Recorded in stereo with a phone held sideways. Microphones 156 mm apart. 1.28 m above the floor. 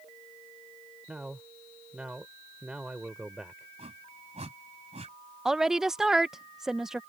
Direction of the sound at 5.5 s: 5° right (ahead or behind).